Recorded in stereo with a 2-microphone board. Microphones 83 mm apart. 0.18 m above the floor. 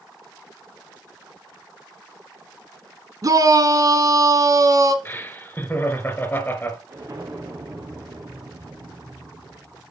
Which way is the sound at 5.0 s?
20° left (ahead or behind).